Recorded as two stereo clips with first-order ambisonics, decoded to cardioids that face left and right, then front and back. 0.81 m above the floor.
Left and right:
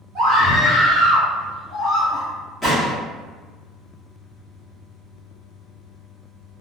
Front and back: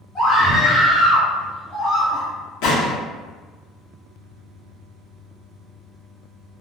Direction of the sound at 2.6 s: 5° right.